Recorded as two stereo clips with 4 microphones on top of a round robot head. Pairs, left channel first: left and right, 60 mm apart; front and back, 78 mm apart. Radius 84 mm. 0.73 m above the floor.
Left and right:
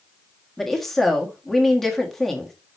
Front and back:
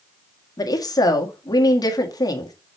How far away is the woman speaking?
About 1.7 m.